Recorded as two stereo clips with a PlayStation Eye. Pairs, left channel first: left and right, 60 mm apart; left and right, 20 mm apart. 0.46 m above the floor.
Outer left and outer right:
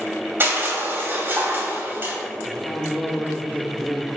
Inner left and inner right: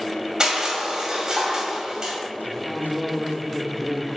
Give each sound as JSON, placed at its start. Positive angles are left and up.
{"t": 0.4, "sound": "crushing", "side_deg": -35, "distance_m": 2.0}
{"t": 2.5, "sound": "a man speaking", "side_deg": 5, "distance_m": 1.0}